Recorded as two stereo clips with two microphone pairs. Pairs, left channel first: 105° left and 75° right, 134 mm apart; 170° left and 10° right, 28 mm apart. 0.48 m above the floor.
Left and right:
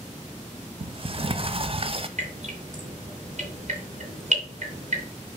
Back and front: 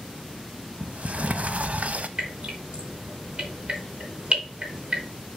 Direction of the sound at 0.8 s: 35° right.